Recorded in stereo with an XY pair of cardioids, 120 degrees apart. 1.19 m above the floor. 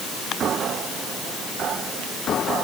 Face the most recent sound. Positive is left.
No sound to turn to.